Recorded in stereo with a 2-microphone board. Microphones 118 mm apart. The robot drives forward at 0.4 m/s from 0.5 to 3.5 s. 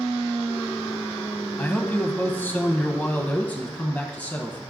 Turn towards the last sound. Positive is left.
turn(degrees=15)  # may be behind; listen again after turning